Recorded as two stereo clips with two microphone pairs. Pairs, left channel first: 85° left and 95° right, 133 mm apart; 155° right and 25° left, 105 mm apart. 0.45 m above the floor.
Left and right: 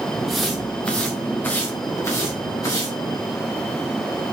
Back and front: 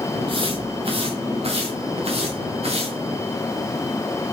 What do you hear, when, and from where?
0.1 s footsteps: 10° right, 1.9 m; by 3.2 s 25° left, 3.5 m